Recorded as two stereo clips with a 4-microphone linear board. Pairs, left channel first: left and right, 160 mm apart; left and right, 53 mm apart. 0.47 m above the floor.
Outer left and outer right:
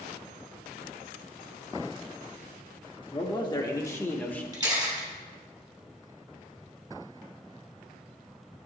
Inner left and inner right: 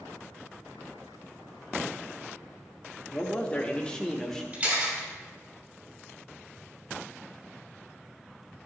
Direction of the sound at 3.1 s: 30° left (ahead or behind).